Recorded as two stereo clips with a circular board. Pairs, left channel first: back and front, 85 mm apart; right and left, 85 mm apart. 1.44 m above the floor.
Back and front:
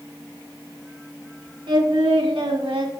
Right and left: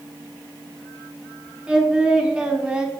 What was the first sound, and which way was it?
Singing, 10° left.